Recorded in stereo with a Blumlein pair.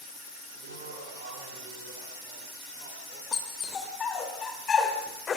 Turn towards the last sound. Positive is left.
turn(degrees=20)